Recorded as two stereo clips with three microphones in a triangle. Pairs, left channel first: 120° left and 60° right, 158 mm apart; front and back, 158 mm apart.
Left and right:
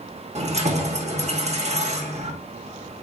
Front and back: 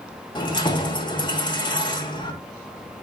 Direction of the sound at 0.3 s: 45° right.